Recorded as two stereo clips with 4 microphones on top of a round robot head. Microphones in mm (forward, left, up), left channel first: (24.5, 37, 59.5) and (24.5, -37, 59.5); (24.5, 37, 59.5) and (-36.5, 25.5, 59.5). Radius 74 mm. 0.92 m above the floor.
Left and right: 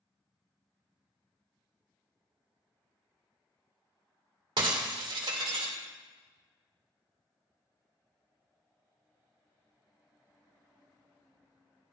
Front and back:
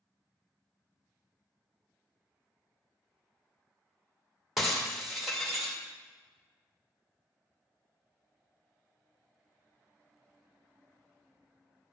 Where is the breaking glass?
80° right, 1.9 m.